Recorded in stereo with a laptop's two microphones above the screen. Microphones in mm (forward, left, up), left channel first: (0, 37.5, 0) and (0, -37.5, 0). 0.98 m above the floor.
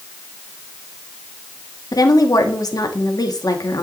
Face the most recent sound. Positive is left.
turn(degrees=55)  # may be behind; listen again after turning